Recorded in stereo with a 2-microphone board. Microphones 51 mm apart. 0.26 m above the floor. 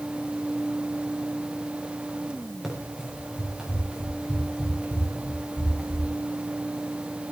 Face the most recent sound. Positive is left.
turn(degrees=-10)  # may be behind; listen again after turning